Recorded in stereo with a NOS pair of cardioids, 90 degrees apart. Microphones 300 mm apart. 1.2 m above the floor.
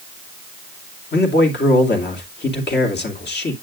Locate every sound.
1.1 s a man speaking: 35° left, 2.5 m